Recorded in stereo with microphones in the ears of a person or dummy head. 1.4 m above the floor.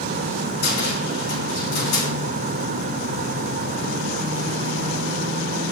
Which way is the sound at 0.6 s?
50° left (ahead or behind).